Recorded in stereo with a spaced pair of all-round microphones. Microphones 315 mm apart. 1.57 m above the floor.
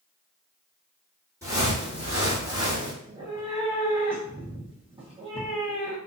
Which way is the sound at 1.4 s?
10° right (ahead or behind).